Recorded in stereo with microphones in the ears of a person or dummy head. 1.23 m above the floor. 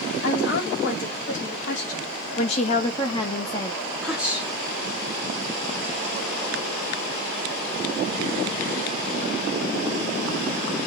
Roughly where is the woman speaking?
Left.